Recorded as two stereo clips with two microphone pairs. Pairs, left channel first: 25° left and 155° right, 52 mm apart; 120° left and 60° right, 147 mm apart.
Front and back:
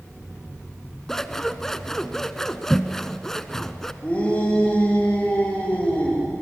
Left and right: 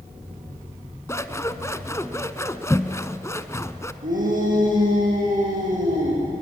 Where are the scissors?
90° left, 0.9 m.